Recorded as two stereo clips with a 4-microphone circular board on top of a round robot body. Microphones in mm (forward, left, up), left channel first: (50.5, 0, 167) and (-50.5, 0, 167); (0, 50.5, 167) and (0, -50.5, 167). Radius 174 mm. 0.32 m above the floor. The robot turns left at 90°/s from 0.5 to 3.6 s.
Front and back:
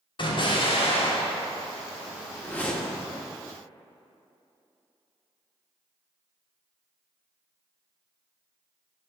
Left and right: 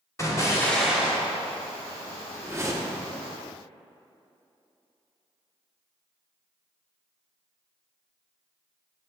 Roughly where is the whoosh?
Ahead right.